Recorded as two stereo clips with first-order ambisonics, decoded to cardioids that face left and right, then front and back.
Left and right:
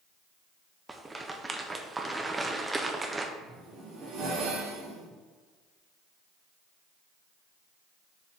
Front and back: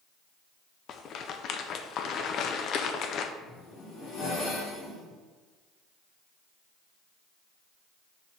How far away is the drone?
I don't hear a drone.